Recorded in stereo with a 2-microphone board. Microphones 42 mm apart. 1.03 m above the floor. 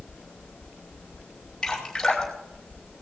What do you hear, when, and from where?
1.6 s dripping: 10° left (ahead or behind), 5 m